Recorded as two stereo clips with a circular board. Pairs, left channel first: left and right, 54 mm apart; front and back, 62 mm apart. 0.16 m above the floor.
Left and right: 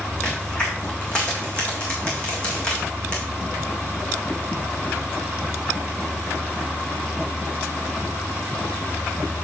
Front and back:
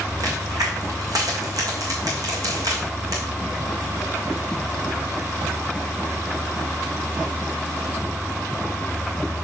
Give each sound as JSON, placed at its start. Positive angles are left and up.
{"t": 0.2, "sound": "a crack", "azimuth_deg": 160, "distance_m": 3.0}